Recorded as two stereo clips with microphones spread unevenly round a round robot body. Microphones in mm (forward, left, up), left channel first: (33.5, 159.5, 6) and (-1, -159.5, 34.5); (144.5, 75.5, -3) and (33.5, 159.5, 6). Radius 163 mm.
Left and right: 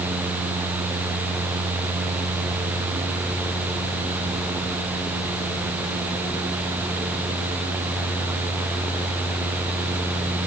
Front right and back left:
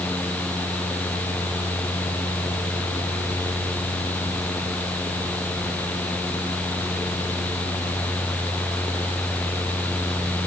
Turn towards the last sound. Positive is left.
No sound to turn to.